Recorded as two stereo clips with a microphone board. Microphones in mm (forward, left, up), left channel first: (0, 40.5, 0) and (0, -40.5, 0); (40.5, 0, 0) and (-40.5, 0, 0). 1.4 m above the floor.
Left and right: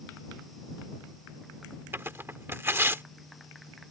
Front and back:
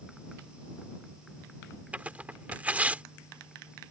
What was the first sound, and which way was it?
Tearing paper, 125° right.